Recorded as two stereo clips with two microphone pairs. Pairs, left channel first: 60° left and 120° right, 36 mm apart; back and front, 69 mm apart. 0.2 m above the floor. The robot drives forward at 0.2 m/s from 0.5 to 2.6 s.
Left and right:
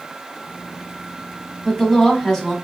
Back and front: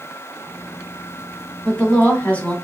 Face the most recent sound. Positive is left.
turn(degrees=135)